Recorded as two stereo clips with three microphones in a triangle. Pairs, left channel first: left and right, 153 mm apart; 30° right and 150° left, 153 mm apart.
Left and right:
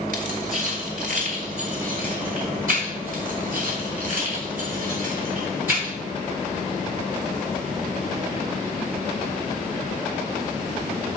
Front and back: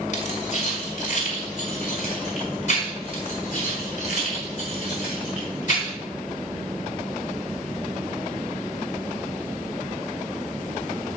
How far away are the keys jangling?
About 2.5 m.